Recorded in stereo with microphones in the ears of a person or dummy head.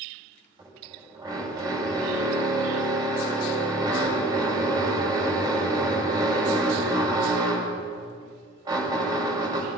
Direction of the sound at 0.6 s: 25° right (ahead or behind).